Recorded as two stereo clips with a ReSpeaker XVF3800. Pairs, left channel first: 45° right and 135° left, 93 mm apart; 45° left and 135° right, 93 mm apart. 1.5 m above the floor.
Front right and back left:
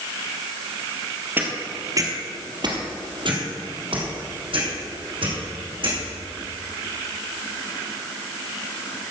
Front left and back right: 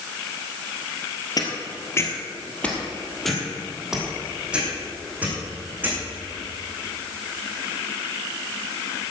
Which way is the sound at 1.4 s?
70° left.